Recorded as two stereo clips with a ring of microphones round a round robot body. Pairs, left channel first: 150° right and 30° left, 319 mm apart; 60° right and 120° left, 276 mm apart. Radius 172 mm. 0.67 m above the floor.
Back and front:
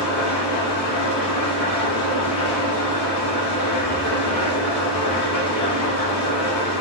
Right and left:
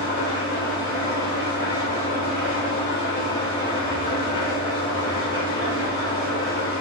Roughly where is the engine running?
Behind right.